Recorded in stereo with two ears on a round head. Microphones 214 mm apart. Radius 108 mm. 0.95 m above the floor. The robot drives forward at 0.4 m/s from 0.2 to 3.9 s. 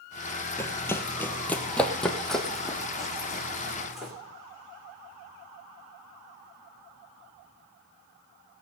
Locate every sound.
0.6 s running footsteps: 10° left (ahead or behind), 1.0 m; by 4.1 s centre (ahead or behind), 3 m